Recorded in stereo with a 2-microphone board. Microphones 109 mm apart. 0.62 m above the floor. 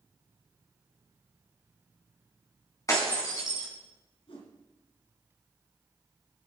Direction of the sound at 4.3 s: 55° left (ahead or behind).